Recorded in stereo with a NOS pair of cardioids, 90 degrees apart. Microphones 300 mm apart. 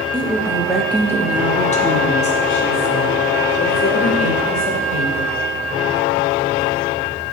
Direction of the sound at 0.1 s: 15° right.